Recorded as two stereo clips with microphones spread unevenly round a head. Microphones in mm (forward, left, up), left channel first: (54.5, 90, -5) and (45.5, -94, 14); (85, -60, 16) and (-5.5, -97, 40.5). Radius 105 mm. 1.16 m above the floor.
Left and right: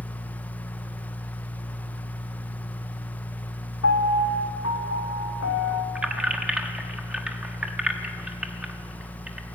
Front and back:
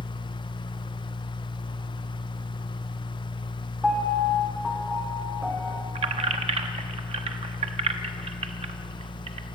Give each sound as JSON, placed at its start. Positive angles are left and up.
{"t": 0.0, "sound": "a fan", "azimuth_deg": 10, "distance_m": 1.2}
{"t": 3.8, "sound": "a piano", "azimuth_deg": 120, "distance_m": 2.5}
{"t": 6.0, "sound": "keys jangling", "azimuth_deg": -175, "distance_m": 1.0}